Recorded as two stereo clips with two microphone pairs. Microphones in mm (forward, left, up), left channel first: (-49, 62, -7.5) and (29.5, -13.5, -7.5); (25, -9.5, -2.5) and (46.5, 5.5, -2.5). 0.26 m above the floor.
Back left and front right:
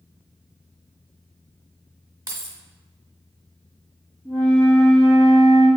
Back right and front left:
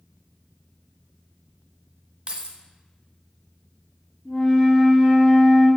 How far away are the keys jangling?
About 1.1 m.